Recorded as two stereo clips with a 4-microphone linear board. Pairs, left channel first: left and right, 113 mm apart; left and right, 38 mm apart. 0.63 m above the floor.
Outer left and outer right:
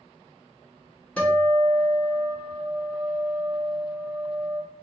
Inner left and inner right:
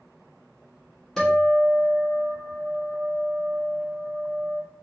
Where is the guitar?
10° left (ahead or behind), 1.3 m.